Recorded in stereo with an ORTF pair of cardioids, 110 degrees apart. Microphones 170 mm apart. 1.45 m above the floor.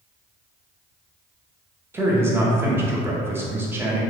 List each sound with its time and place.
1.9 s a man speaking: 15° right, 0.8 m